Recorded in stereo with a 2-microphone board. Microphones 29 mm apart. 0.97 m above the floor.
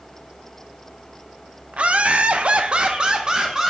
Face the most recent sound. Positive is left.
turn(degrees=-15)  # may be behind; listen again after turning